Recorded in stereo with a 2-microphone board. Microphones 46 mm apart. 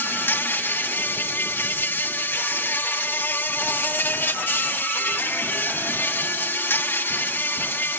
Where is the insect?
50° left (ahead or behind), 1.0 m.